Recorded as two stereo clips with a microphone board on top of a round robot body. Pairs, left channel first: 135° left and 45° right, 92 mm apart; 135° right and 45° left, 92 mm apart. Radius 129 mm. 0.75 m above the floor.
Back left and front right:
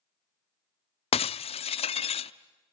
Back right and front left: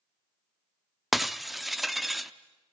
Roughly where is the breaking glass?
Behind left.